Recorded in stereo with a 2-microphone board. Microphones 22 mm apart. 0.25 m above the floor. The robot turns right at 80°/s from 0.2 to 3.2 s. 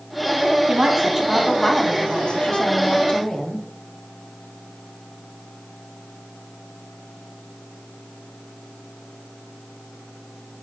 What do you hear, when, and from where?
0.7 s a woman speaking: 65° right, 1.6 m; by 3.6 s 135° left, 1.6 m